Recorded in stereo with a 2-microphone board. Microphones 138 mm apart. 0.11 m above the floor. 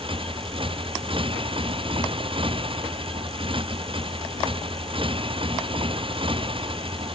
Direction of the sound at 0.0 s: 35° right (ahead or behind).